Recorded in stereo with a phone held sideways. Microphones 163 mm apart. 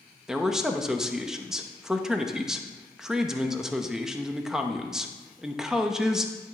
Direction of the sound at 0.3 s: 5° right (ahead or behind).